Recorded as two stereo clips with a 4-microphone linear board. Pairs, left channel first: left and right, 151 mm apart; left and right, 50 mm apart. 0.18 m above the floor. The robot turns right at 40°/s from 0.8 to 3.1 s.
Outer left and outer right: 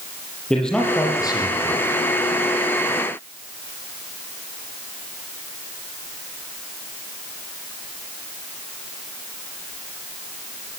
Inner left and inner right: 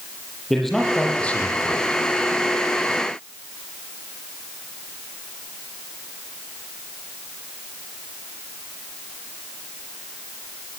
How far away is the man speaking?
About 7.5 m.